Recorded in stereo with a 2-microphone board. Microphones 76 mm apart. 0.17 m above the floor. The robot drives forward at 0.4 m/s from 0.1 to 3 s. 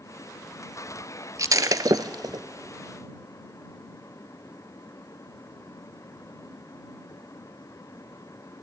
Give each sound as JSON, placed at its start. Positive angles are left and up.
{"t": 1.4, "sound": "breaking glass", "side_deg": -50, "distance_m": 0.7}